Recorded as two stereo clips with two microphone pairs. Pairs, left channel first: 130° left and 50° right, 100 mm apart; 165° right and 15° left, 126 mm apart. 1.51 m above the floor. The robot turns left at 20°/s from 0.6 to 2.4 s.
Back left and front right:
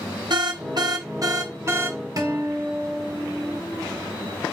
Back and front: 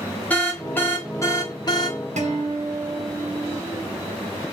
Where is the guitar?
5° left, 1.7 m; by 3.6 s straight ahead, 1.7 m.